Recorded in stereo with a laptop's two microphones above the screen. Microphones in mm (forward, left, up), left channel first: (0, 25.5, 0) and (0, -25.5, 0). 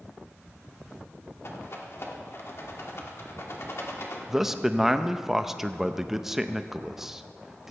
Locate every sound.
1.4 s a rattle: 55° left (ahead or behind), 1.4 m
4.3 s a man speaking: 5° right (ahead or behind), 0.7 m